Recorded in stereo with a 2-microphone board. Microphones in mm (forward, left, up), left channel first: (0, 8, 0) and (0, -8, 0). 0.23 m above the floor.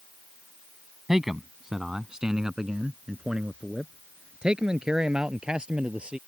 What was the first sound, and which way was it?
A man speaking, 25° right (ahead or behind).